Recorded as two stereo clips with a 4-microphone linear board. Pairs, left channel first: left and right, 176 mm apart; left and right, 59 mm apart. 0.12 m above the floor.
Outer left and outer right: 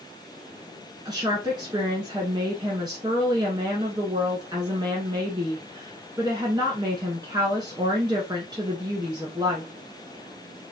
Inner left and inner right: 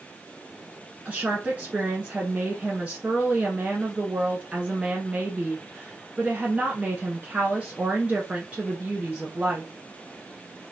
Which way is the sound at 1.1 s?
25° right (ahead or behind).